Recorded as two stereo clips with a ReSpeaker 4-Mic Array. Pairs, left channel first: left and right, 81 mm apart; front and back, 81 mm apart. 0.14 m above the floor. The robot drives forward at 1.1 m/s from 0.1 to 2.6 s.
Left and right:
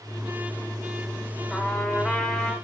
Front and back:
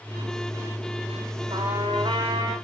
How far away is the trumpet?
About 5.5 m.